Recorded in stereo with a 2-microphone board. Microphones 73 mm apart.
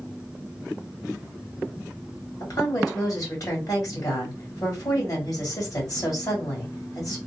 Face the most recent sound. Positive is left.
turn(degrees=50)  # may be behind; listen again after turning